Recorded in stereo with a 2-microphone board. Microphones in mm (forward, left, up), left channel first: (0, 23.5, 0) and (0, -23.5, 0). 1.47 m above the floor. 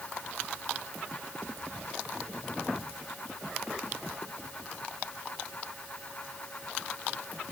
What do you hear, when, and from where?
Only background noise.